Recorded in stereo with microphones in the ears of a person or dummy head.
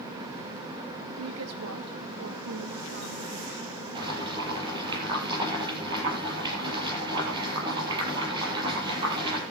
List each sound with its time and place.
1.2 s a woman speaking: 85° right, 2 m
4.0 s boiling: 30° right (ahead or behind), 7.5 m